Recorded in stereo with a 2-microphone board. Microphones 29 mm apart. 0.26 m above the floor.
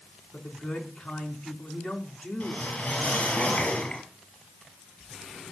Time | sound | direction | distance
0.3 | a man speaking | 60° left (ahead or behind) | 3 m
2.4 | a whoosh | 60° left (ahead or behind) | 5 m